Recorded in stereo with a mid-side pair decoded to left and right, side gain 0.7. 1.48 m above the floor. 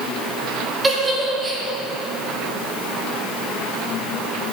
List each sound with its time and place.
0.8 s a giggle: 20° right, 1.9 m